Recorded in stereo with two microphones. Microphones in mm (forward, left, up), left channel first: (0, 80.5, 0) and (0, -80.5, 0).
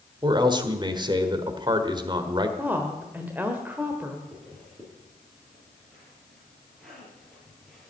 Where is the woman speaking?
10° right (ahead or behind), 1.2 m.